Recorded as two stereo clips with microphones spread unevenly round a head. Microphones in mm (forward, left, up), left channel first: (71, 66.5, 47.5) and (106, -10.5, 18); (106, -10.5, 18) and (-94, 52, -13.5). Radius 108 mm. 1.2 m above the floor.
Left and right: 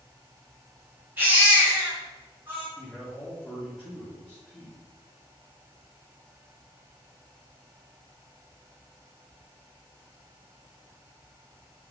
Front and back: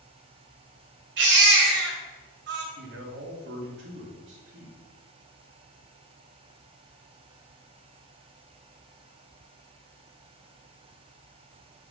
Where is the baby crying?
155° right, 1.7 m.